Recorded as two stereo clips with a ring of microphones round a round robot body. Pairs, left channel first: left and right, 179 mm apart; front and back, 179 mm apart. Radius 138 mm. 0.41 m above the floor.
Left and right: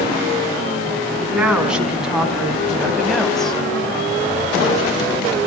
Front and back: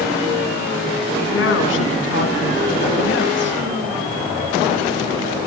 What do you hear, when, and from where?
1.2 s a woman speaking: 5° right, 4 m; by 3.6 s 5° left, 2.5 m